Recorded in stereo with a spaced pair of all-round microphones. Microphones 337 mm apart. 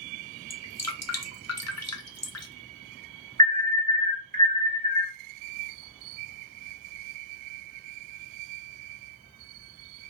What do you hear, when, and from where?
0.5 s dripping: 50° left (ahead or behind), 0.6 m
3.4 s an alarm: 25° right (ahead or behind), 1.0 m